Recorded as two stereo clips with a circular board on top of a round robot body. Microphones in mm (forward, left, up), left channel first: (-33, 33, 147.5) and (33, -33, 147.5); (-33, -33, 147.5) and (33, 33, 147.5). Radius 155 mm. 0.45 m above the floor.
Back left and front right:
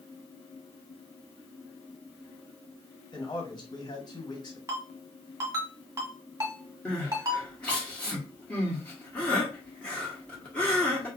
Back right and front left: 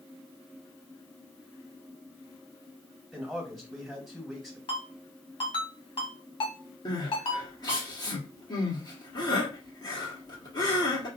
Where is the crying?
150° right, 1.8 m.